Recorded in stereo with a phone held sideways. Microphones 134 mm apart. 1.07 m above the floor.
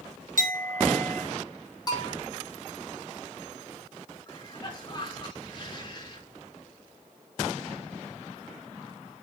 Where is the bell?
30° left (ahead or behind), 2.5 m.